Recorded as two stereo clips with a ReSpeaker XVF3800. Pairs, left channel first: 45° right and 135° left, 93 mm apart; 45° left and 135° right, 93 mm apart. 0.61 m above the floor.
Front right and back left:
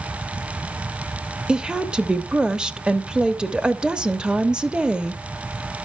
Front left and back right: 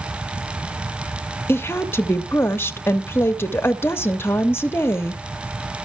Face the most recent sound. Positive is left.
turn(degrees=60)